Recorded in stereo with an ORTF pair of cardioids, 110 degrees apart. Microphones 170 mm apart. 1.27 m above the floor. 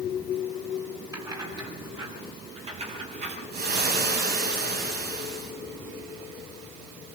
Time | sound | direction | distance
1.1 | keys jangling | 20° right | 8.5 m
3.5 | frying | 70° right | 8.5 m